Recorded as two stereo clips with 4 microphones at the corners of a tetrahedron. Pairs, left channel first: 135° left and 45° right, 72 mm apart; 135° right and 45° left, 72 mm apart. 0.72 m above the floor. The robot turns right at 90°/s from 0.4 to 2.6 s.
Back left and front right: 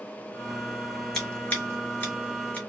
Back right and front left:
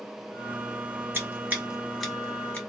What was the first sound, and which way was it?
Scissors, 50° left.